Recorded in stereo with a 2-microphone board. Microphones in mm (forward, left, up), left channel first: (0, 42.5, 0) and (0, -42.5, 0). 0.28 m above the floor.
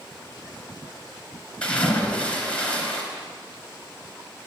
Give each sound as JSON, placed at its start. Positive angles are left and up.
{"t": 1.6, "sound": "a splash", "side_deg": 10, "distance_m": 3.0}